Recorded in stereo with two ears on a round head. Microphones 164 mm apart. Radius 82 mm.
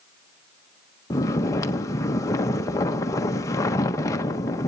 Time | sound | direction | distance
1.1 | snoring | 15° left (ahead or behind) | 1.0 m